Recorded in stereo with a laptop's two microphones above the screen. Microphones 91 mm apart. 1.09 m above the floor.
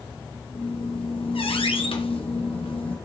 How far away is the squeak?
About 0.9 m.